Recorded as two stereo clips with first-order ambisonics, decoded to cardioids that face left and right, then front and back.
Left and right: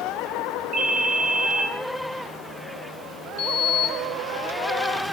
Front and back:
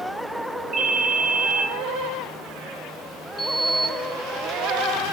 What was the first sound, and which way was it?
A ringtone, 135° right.